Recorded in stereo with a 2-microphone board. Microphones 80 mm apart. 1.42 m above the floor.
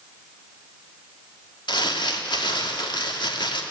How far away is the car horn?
I don't hear a car horn.